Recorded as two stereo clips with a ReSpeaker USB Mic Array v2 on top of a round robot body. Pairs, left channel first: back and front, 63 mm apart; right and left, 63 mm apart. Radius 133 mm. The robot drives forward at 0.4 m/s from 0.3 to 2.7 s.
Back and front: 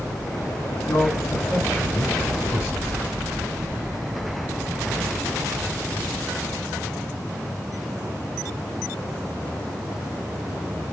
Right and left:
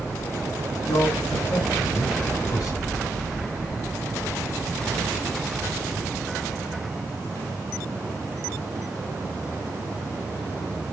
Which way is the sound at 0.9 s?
115° right.